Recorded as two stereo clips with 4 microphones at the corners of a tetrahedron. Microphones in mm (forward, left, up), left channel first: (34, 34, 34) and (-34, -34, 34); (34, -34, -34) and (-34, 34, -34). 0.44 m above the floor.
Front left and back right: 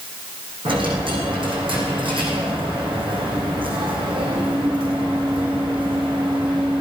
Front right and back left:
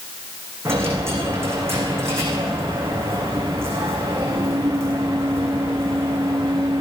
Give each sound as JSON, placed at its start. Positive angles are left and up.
{"t": 0.7, "sound": "a dropped coin", "azimuth_deg": -160, "distance_m": 5.5}